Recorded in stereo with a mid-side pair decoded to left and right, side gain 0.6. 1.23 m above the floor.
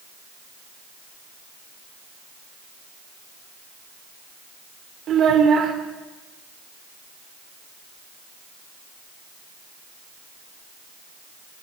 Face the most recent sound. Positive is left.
turn(degrees=-50)